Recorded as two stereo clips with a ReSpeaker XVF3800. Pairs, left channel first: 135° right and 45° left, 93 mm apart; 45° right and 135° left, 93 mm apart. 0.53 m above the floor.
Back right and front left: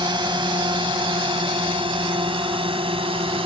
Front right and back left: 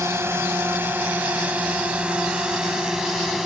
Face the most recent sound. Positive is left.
turn(degrees=45)